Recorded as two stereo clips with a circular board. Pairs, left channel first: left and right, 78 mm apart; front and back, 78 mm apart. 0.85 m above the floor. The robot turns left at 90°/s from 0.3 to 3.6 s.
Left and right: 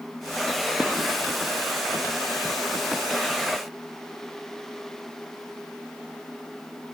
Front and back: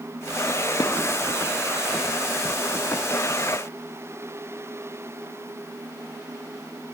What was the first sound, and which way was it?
Dishes clattering, 10° right.